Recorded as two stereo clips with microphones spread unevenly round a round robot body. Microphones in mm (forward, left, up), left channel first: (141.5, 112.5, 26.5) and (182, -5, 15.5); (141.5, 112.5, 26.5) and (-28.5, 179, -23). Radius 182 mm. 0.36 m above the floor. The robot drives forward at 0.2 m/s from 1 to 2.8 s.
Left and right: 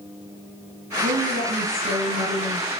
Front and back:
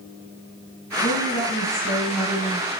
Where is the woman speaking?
90° right, 6 m; by 2.7 s 95° right, 6 m.